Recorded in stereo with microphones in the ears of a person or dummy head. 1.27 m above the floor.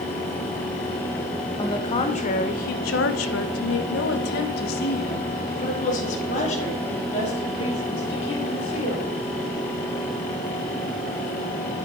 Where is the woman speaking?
30° left (ahead or behind), 1.2 m; by 9.1 s 35° left (ahead or behind), 3.5 m.